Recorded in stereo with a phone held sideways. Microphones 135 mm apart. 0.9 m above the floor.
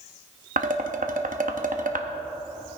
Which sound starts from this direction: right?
Dishes clattering, at 0.6 s.